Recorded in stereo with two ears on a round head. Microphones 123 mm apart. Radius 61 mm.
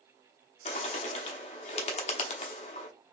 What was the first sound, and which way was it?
A bird, 50° left (ahead or behind).